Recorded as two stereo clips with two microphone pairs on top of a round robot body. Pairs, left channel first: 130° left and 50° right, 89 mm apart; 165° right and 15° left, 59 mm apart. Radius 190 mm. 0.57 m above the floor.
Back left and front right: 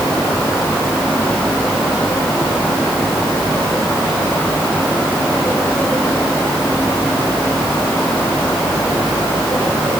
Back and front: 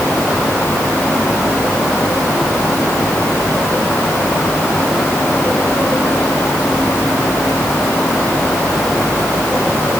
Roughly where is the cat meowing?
No cat meowing in this recording.